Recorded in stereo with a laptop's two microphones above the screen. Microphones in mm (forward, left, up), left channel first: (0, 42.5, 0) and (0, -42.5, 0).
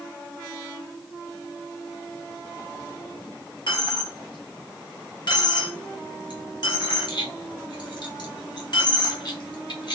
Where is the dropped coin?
60° left (ahead or behind), 0.9 m.